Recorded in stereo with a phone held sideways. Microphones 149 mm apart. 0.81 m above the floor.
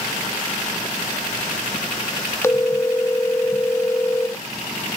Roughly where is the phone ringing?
Centre.